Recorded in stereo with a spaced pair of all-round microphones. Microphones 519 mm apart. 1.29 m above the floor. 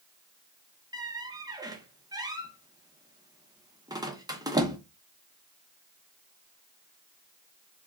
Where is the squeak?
10° right (ahead or behind), 0.6 m.